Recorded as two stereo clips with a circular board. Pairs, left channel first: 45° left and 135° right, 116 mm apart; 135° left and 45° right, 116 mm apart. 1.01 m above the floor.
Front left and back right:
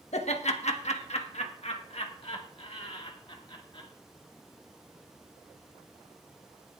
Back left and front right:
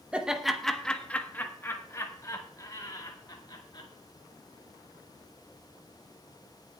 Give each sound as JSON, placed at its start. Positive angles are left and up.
{"t": 0.1, "sound": "laughter", "azimuth_deg": 35, "distance_m": 1.1}